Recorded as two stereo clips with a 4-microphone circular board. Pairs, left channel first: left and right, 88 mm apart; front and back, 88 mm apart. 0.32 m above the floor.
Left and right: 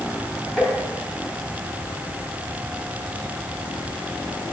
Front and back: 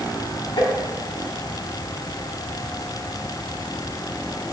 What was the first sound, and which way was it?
Tapping, 10° left.